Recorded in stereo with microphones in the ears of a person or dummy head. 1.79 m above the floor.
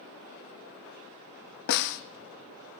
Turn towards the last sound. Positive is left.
turn(degrees=60)  # may be behind; listen again after turning